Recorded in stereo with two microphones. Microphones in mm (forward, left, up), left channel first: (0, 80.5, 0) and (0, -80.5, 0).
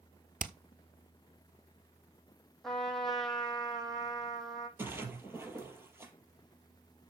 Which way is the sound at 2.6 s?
5° left (ahead or behind).